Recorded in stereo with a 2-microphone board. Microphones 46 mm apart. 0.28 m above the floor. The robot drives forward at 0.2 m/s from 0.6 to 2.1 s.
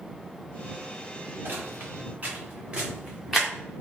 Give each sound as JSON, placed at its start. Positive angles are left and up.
{"t": 1.4, "sound": "footsteps", "side_deg": -50, "distance_m": 1.6}